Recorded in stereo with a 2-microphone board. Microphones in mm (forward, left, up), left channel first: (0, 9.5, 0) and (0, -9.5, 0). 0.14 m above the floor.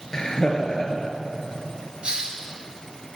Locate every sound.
0.1 s laughter: 40° left (ahead or behind), 2.5 m
2.0 s a hiss: 55° right (ahead or behind), 2.5 m